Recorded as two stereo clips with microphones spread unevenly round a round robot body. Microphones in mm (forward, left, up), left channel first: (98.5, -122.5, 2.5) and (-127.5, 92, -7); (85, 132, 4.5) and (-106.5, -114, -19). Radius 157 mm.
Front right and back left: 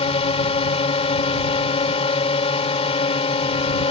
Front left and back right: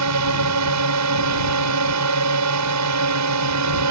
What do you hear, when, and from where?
0.0 s a drone: 115° right